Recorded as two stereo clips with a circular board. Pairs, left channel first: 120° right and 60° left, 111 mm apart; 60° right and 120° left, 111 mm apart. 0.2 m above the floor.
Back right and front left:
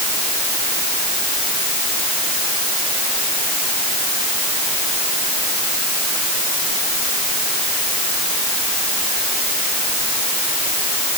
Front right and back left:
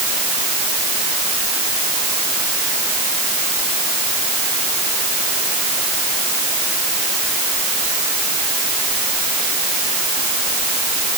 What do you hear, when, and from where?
Only background noise.